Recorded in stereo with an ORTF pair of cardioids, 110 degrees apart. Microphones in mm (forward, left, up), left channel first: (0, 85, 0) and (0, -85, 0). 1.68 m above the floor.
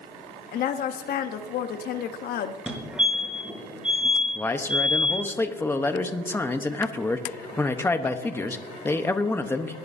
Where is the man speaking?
15° left, 0.9 m.